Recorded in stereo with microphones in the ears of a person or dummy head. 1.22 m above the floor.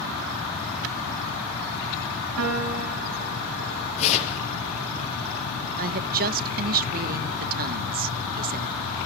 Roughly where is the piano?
Right.